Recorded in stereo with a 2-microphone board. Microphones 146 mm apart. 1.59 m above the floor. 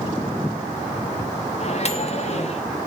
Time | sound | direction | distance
1.6 | a microwave | 50° left (ahead or behind) | 1.9 m